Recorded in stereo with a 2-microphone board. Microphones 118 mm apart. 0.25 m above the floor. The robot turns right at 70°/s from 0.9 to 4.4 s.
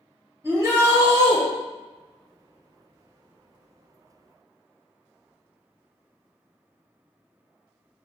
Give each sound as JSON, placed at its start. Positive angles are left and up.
{"t": 0.4, "sound": "a shout", "azimuth_deg": -135, "distance_m": 1.3}